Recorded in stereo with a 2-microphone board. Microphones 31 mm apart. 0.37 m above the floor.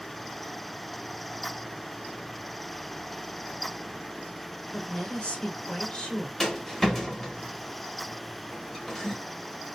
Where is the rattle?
10° left (ahead or behind), 0.9 m.